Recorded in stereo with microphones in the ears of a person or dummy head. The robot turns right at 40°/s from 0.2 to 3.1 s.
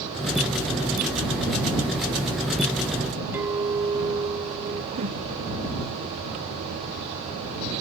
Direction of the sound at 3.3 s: 10° right (ahead or behind).